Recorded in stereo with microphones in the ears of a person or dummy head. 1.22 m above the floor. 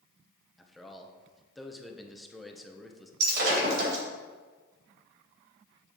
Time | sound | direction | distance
0.6 | a man speaking | centre (ahead or behind) | 0.8 m
3.2 | breaking glass | 60° right (ahead or behind) | 3 m